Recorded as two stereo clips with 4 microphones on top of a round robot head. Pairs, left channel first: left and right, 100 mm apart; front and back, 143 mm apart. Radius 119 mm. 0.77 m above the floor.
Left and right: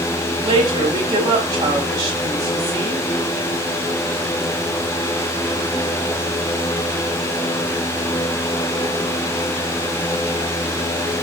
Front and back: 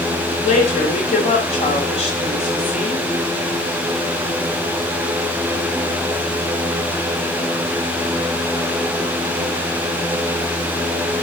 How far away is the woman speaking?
About 3.5 m.